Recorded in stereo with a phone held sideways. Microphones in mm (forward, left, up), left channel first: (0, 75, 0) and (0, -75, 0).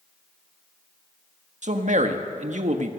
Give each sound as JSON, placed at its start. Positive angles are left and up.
{"t": 1.6, "sound": "a man speaking", "side_deg": -55, "distance_m": 1.5}